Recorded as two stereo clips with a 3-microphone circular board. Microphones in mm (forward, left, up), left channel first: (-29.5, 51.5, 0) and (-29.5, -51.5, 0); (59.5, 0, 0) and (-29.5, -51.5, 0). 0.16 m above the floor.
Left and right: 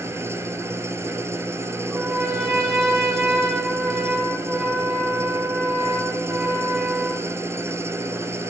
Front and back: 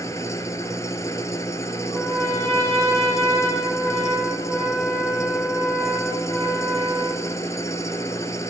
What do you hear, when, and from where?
0.0 s an engine running: 30° right, 1.0 m
1.9 s a trumpet: 35° right, 7.5 m